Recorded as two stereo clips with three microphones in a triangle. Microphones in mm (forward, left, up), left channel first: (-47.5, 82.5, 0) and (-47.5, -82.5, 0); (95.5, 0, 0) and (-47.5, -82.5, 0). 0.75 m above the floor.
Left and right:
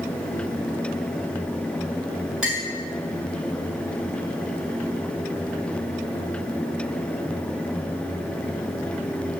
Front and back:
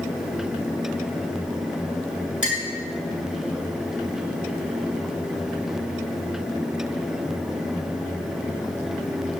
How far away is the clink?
About 4.5 m.